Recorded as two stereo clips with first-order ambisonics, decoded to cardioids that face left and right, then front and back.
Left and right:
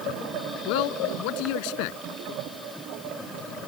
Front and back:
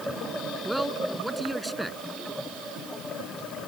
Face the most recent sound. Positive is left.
turn(degrees=95)